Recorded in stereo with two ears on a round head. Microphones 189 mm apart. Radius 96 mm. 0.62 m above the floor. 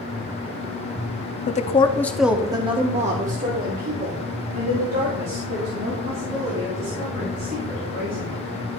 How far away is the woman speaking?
About 0.7 m.